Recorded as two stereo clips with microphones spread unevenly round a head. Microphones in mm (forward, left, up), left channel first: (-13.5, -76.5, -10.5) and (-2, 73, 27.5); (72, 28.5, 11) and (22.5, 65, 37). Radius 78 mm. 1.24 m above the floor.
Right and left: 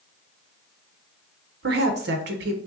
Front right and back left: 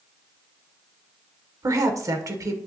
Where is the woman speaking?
110° left, 0.8 m.